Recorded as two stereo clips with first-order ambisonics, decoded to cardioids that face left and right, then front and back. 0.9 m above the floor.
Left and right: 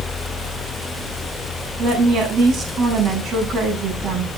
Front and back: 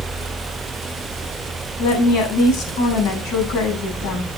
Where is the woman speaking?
20° right, 8.5 m.